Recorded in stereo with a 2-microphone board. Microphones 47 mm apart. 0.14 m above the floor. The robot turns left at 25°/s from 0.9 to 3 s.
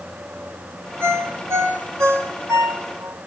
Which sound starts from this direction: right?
A ringtone, at 1.0 s.